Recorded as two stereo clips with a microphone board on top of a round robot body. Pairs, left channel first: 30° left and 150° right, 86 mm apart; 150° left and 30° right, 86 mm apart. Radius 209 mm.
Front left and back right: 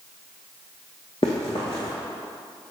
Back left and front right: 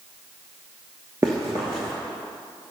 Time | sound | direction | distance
1.2 | running footsteps | 20° left | 0.5 m